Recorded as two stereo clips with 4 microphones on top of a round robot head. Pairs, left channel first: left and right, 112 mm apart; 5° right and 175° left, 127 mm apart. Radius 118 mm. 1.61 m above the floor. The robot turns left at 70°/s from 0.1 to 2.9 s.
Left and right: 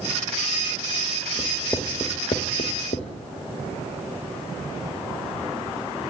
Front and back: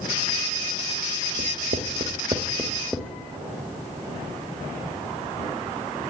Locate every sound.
1.4 s writing: 170° right, 1.4 m; by 3.1 s 85° left, 1.4 m